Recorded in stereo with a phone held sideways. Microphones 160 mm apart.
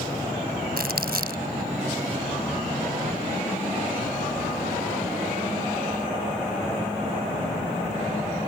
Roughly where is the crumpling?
Right.